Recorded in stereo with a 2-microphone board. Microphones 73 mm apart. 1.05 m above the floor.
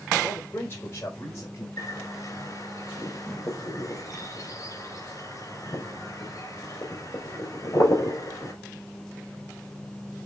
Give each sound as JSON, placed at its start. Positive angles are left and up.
{"t": 0.2, "sound": "a man speaking", "side_deg": 30, "distance_m": 3.5}
{"t": 1.8, "sound": "a bird", "side_deg": 45, "distance_m": 4.5}